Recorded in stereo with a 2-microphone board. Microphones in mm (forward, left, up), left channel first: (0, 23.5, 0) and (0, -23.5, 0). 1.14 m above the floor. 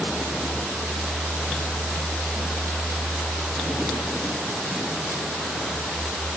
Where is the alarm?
I don't hear an alarm.